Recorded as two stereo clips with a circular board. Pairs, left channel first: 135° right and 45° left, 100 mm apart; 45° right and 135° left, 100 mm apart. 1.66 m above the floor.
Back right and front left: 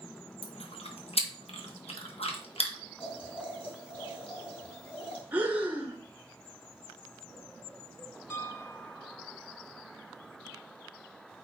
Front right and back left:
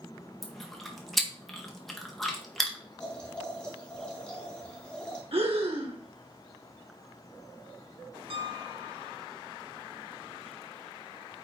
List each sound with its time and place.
0.4 s chewing: 130° right, 1.6 m
3.0 s boiling: 125° right, 4 m
5.3 s breathing: 120° left, 1.7 m
8.3 s a piano: 160° left, 0.9 m